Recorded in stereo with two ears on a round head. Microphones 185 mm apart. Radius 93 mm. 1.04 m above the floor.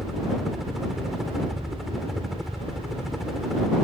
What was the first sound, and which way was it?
A helicopter, centre (ahead or behind).